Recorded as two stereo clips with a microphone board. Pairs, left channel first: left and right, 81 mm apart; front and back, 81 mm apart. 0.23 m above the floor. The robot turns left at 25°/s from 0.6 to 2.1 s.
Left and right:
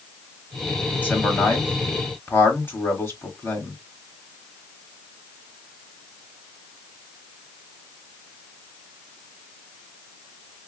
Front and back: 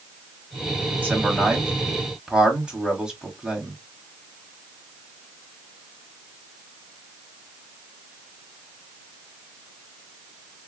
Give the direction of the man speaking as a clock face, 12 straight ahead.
8 o'clock.